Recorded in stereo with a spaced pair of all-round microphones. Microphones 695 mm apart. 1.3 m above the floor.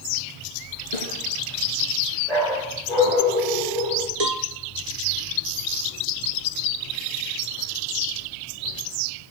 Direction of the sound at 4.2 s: 65° right (ahead or behind).